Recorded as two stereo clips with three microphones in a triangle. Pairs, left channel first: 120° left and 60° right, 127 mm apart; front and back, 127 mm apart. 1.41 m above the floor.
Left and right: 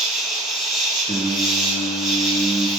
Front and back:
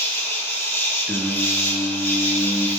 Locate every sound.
0.0 s an insect: 25° left, 0.8 m
1.1 s singing: 95° left, 0.6 m